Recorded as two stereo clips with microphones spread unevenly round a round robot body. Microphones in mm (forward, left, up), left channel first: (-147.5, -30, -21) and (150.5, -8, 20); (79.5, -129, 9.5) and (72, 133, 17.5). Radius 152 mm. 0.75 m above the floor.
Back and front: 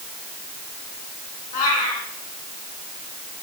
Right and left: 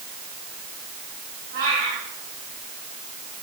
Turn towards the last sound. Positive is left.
turn(degrees=155)